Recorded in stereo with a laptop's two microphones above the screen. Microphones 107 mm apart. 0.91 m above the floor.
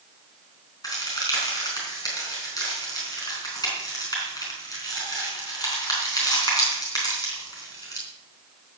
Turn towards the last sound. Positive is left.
turn(degrees=35)  # may be behind; listen again after turning